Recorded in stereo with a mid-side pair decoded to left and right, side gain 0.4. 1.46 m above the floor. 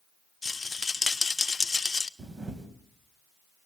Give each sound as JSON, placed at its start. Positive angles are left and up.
{"t": 0.4, "sound": "a rattle", "azimuth_deg": 25, "distance_m": 0.9}
{"t": 2.2, "sound": "a camera shutter", "azimuth_deg": -40, "distance_m": 3.5}